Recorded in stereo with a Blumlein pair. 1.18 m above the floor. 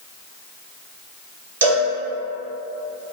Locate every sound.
1.6 s a cowbell: 70° right, 1.1 m